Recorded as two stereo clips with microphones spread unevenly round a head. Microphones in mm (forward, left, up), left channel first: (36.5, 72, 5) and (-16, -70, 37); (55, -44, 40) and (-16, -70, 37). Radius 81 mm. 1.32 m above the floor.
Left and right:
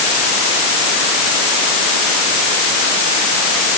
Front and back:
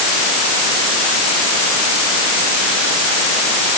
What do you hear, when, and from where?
Only background noise.